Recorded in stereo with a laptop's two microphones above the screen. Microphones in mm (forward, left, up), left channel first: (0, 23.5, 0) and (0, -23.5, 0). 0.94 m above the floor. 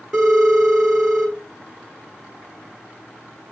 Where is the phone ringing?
10° right (ahead or behind), 4.5 m.